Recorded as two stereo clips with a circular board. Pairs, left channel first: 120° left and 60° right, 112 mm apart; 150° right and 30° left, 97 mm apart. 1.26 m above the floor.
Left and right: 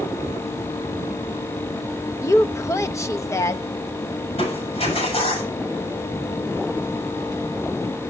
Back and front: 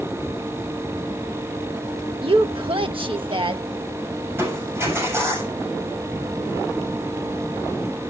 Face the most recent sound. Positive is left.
turn(degrees=95)